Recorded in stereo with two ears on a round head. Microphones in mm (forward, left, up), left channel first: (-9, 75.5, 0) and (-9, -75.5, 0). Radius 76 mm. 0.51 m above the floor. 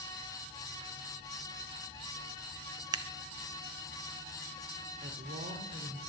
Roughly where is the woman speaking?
Right.